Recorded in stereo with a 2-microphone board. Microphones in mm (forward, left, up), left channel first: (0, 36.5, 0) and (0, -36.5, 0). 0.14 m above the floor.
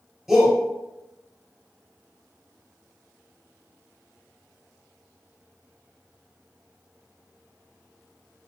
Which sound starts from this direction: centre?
A shout, at 0.3 s.